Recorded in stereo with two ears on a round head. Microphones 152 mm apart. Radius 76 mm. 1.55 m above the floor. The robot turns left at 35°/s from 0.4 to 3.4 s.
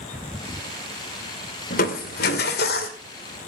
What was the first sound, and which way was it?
Crushing, 115° left.